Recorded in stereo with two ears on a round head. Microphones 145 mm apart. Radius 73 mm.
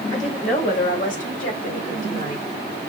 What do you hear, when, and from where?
0.1 s a woman speaking: 45° left (ahead or behind), 2.5 m; by 2.5 s 60° left (ahead or behind), 2 m